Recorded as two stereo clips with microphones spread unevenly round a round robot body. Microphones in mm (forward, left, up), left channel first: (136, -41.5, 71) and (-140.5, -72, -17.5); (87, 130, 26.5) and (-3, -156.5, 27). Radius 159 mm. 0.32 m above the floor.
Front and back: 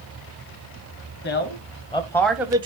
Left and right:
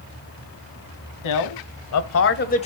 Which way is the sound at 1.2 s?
70° left.